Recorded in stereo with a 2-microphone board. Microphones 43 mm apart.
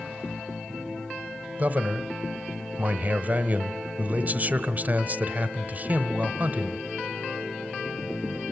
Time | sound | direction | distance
1.6 | a man speaking | 40° right (ahead or behind) | 1.0 m